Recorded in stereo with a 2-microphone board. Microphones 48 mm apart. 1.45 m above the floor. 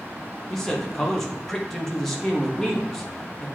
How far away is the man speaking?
About 1.4 m.